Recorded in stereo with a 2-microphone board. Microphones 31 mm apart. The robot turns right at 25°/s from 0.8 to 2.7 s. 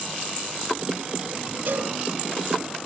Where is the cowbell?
55° right (ahead or behind), 2.5 m; by 1.9 s 65° right (ahead or behind), 2.5 m.